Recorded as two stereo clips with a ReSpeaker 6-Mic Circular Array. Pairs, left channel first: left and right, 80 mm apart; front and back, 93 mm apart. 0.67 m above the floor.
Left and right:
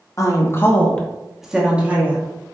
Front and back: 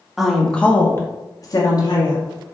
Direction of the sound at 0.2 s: 95° left.